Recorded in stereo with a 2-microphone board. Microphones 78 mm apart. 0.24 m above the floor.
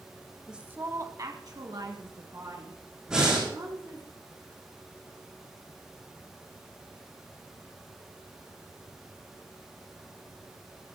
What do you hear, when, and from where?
0.5 s a woman speaking: 5° right (ahead or behind), 1.0 m; by 4.1 s 80° right, 5.5 m
3.1 s breathing: 10° right (ahead or behind), 7 m